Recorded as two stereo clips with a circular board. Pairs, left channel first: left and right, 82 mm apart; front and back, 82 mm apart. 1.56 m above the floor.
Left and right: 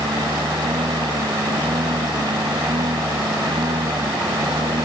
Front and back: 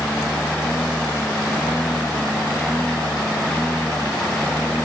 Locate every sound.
0.0 s a lawn mower: 80° right